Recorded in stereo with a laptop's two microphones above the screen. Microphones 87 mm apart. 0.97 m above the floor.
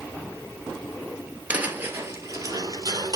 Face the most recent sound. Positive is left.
turn(degrees=-50)  # may be behind; listen again after turning